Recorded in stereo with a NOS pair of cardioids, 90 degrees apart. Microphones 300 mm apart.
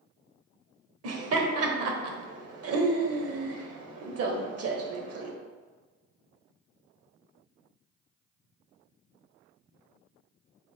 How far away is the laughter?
About 0.9 m.